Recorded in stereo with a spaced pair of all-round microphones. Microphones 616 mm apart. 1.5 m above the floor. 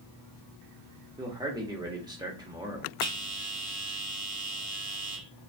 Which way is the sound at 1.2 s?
5° right (ahead or behind).